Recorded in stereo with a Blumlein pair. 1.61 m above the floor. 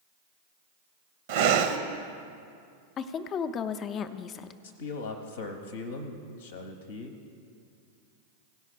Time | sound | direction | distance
1.3 | breathing | 50° right | 0.7 m
3.0 | a woman speaking | 30° left | 0.5 m
4.6 | a man speaking | 60° left | 0.8 m